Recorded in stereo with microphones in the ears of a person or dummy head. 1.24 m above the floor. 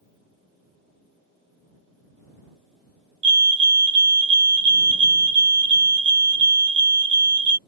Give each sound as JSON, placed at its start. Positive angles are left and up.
{"t": 3.2, "sound": "a fire alarm", "side_deg": -25}